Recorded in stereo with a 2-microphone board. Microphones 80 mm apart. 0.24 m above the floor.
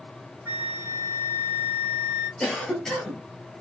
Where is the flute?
25° right (ahead or behind), 1.7 m.